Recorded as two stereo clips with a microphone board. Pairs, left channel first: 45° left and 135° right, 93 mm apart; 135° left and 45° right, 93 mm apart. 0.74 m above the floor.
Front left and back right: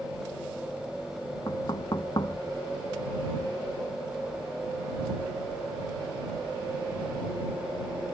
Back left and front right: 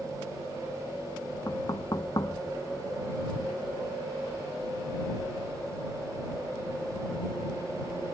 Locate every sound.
1.5 s knocking: 85° left